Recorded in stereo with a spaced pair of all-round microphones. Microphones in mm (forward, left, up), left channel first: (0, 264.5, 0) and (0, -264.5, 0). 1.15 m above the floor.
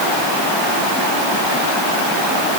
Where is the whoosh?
No whoosh in this recording.